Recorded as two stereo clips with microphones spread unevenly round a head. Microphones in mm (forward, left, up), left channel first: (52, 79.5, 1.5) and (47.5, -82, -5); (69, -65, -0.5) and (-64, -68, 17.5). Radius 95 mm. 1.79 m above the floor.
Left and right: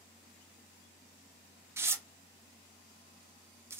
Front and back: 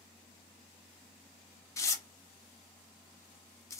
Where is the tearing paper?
40° right, 0.6 m.